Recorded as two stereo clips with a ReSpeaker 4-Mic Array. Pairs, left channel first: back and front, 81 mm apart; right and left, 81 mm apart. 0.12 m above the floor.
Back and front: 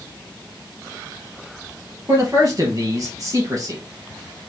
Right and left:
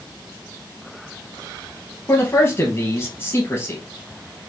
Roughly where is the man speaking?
Ahead right.